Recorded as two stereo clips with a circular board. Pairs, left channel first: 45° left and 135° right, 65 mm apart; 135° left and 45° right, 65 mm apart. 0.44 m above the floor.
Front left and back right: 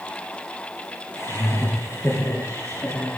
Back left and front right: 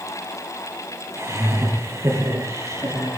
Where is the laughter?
5° right, 7.5 m; by 3.2 s 10° right, 8.5 m.